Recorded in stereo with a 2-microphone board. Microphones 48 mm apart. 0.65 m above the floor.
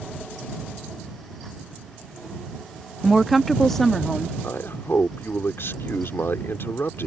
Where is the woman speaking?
5° right (ahead or behind); by 4.3 s 10° left (ahead or behind).